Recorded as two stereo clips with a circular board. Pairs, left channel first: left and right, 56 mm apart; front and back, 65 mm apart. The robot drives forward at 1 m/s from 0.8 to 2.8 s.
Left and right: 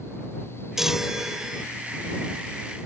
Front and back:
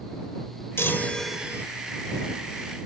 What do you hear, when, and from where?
0.8 s a chime: 10° right; by 1.6 s 165° right